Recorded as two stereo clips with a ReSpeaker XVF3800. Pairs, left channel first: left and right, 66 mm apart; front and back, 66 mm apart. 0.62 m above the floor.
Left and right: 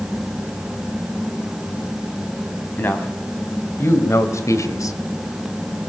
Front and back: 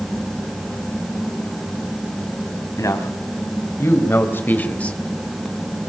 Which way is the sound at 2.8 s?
35° left.